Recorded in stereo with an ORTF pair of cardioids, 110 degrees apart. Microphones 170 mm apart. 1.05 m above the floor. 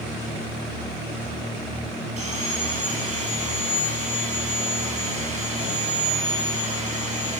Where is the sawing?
45° right, 6.5 m.